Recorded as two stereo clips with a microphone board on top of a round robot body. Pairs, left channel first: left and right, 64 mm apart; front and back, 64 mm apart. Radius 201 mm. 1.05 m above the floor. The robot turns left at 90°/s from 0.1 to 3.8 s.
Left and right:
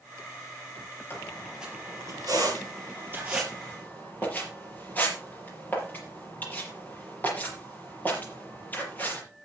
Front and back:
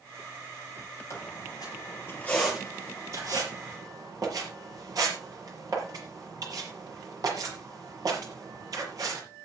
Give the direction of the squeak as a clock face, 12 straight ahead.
11 o'clock.